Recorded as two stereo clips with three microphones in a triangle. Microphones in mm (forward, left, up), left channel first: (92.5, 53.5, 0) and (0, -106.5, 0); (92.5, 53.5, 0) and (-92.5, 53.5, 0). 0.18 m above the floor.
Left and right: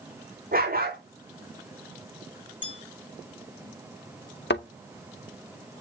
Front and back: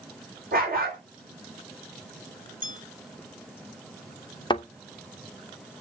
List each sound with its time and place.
0.5 s a dog barking: 150° right, 4.5 m
2.6 s a bell: 155° right, 1.4 m
4.5 s a thud: 65° left, 1.8 m